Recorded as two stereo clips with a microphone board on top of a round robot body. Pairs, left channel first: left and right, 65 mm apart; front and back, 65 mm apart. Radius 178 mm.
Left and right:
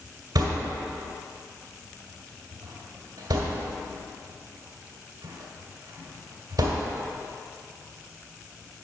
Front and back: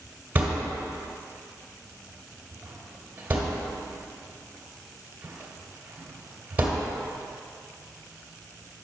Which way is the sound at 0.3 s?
110° right.